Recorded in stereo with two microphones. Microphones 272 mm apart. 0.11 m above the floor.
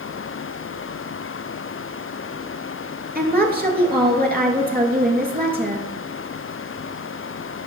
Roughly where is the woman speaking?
Right.